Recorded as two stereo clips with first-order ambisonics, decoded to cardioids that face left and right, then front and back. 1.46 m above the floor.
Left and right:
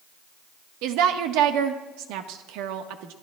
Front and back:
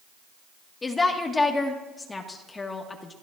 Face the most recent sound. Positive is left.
turn(degrees=-75)